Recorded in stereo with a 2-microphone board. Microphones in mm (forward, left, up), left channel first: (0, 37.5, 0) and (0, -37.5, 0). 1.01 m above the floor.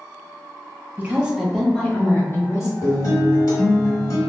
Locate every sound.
1.0 s a woman speaking: 25° right (ahead or behind), 0.6 m; by 2.7 s 40° left (ahead or behind), 1.0 m
2.8 s a guitar: 50° left (ahead or behind), 1.1 m